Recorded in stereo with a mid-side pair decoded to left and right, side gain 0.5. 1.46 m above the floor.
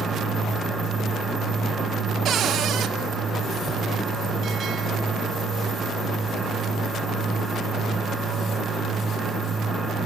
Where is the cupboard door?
60° right, 1.4 m.